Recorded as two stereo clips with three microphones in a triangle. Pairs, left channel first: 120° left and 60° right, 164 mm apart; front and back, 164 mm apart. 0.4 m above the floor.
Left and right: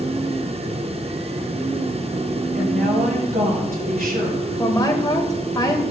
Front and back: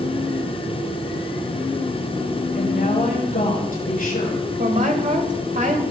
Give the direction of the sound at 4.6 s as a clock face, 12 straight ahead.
6 o'clock.